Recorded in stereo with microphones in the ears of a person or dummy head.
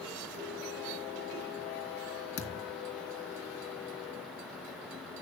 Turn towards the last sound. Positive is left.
turn(degrees=60)  # may be behind; listen again after turning